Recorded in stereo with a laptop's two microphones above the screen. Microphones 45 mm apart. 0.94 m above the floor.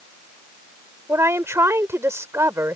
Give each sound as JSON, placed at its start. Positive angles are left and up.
{"t": 1.1, "sound": "a woman speaking", "side_deg": -80}